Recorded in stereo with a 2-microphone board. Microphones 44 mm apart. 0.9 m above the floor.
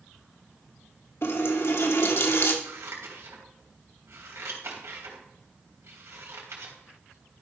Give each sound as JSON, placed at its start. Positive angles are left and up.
{"t": 1.2, "sound": "a running tap", "side_deg": 60, "distance_m": 1.2}
{"t": 2.6, "sound": "scissors", "side_deg": -75, "distance_m": 3.0}